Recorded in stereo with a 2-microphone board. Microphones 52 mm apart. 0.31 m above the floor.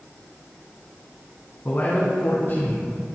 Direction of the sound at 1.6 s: 45° left (ahead or behind).